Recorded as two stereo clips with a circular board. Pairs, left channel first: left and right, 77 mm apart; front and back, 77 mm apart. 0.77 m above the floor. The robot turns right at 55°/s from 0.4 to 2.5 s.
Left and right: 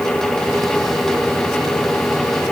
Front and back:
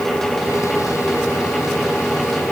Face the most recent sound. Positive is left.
No sound to turn to.